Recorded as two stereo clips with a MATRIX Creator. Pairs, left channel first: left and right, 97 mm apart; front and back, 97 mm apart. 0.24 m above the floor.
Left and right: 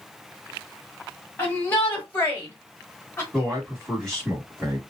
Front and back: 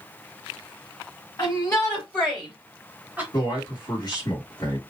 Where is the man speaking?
5° left, 1.6 m.